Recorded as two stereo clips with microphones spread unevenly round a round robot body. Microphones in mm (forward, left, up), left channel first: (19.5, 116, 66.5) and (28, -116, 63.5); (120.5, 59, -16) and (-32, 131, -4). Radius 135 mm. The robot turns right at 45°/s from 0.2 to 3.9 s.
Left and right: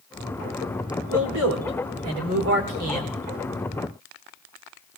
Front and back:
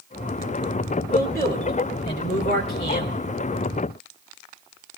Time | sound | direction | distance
1.1 | a man speaking | 115° right | 4.5 m